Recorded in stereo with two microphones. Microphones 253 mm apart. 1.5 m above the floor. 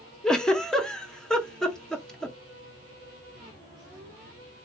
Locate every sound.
0.2 s a giggle: centre (ahead or behind), 0.6 m